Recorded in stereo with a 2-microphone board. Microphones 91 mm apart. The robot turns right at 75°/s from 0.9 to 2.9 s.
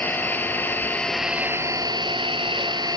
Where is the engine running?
160° left, 1.1 m; by 3.0 s 50° right, 1.1 m.